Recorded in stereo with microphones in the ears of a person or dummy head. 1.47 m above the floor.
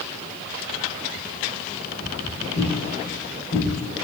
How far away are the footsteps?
About 1.8 m.